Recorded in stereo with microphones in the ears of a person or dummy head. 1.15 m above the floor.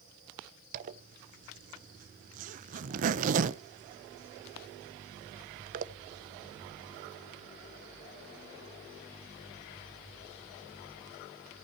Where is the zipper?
45° right (ahead or behind), 0.8 m.